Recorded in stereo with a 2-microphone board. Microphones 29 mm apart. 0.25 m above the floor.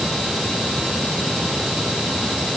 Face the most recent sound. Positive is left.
No sound to turn to.